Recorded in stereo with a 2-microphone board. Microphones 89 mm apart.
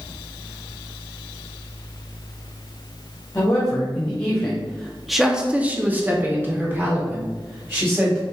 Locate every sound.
3.4 s a woman speaking: 20° left (ahead or behind), 1.6 m; by 8.2 s 25° right (ahead or behind), 2.5 m